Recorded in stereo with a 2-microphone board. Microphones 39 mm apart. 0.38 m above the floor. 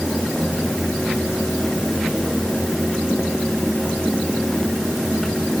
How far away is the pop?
I don't hear a pop.